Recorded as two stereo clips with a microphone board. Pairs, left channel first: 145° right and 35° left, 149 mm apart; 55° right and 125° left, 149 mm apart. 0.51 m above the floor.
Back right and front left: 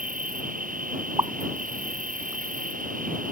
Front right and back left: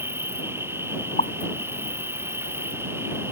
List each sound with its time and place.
0.0 s an insect: 50° left
1.2 s a pop: 30° right